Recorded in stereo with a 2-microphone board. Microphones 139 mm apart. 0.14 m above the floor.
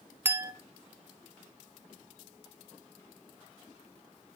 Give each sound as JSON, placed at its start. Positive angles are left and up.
{"t": 0.2, "sound": "a clink", "side_deg": -15, "distance_m": 0.6}